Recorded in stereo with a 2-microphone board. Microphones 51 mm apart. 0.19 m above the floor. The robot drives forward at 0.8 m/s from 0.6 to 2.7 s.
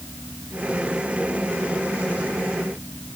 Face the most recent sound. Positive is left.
No sound to turn to.